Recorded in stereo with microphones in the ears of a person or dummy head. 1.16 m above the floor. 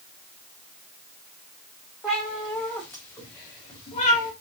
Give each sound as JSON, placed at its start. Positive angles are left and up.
{"t": 2.0, "sound": "a cat meowing", "side_deg": 5, "distance_m": 1.2}